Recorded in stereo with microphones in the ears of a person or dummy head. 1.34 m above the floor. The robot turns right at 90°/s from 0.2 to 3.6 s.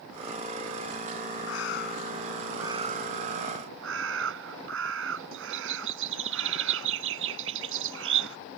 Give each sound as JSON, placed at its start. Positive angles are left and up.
{"t": 1.5, "sound": "a bird", "azimuth_deg": 95}